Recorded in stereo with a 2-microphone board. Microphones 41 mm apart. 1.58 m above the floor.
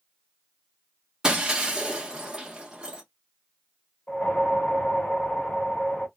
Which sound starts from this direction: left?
A whoosh, at 4.1 s.